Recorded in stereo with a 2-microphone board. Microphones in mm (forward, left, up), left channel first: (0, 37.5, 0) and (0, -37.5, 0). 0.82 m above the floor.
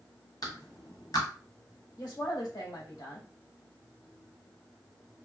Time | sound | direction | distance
0.4 | a clap | 60° left (ahead or behind) | 1.4 m
2.0 | a woman speaking | 65° left (ahead or behind) | 1.7 m